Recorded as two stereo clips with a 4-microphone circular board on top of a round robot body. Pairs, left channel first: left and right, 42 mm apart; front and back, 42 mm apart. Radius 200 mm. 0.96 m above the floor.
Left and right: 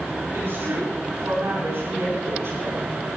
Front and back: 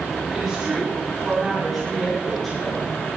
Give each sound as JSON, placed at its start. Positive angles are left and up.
{"t": 0.3, "sound": "a woman speaking", "azimuth_deg": -95, "distance_m": 8.5}